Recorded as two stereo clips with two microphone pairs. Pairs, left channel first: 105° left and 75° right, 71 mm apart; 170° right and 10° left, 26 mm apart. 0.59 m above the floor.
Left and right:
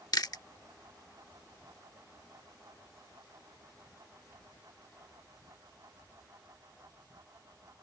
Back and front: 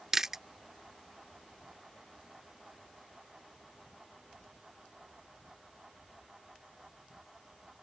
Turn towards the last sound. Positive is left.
turn(degrees=85)